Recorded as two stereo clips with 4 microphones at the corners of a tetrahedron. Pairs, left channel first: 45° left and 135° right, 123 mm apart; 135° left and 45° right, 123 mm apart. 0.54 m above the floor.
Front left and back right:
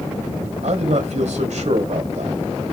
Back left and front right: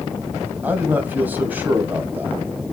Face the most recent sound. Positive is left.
turn(degrees=-120)